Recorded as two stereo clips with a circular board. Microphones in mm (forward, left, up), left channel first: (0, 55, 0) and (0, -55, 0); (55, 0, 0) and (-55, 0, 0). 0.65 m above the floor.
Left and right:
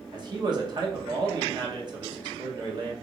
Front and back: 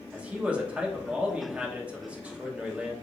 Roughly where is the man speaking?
Right.